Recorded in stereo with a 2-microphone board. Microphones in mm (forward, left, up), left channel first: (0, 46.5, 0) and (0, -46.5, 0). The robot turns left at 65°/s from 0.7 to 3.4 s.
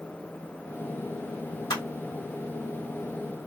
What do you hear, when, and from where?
1.7 s crushing: 55° left (ahead or behind), 1.9 m